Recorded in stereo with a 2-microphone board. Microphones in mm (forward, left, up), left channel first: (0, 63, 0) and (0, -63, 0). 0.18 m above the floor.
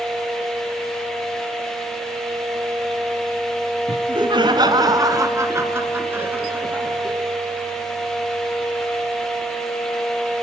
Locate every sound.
3.9 s laughter: 40° right (ahead or behind), 1.7 m; by 7.2 s 10° right (ahead or behind), 3.5 m